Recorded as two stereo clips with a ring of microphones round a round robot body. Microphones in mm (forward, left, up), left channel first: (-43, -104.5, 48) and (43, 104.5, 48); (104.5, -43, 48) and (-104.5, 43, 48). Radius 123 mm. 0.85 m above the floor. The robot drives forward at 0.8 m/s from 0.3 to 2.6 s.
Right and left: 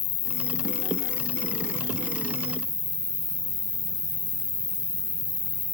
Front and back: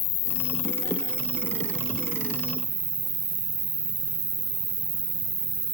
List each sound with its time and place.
0.0 s an insect: 75° right, 0.8 m; by 5.8 s 155° right, 1.8 m